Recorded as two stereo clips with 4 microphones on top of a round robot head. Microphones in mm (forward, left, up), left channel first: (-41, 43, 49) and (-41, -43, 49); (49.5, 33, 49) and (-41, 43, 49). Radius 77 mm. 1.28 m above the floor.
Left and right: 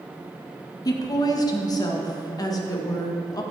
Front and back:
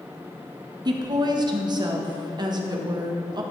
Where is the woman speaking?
135° left, 1.4 m.